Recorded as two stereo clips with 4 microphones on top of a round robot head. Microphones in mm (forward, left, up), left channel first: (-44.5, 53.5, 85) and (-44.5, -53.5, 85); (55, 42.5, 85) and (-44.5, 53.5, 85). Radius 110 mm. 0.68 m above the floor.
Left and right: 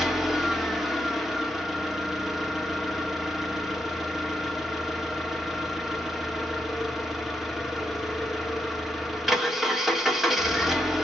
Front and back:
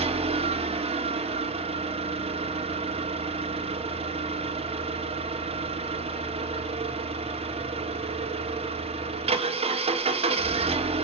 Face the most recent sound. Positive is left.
turn(degrees=180)